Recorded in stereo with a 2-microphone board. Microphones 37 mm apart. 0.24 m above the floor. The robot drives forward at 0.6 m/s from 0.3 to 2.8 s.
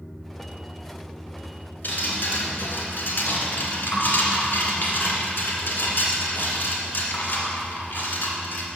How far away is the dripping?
About 1.9 m.